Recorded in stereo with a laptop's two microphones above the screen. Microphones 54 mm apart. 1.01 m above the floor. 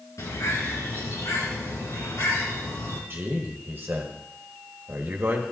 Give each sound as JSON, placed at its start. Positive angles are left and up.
{"t": 0.2, "sound": "a bird", "side_deg": 80, "distance_m": 4.0}
{"t": 3.1, "sound": "a man speaking", "side_deg": -45, "distance_m": 1.5}